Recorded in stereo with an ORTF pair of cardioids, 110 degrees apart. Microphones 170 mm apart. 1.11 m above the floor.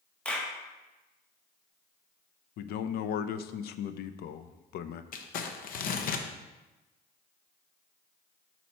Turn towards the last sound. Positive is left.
turn(degrees=55)